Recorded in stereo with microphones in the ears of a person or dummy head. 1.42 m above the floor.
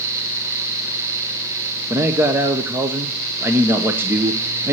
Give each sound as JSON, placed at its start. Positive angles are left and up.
{"t": 1.9, "sound": "a man speaking", "side_deg": -10, "distance_m": 1.0}